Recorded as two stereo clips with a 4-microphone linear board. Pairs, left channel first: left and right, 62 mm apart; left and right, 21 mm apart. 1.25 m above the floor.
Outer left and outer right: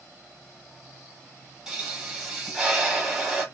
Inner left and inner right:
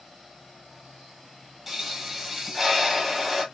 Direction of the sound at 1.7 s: 10° right (ahead or behind).